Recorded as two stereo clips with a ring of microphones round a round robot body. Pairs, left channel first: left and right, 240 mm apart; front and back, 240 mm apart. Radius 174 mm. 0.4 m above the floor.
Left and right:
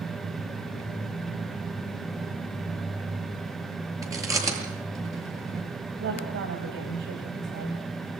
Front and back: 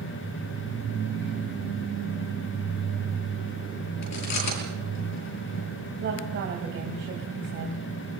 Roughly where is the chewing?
Ahead.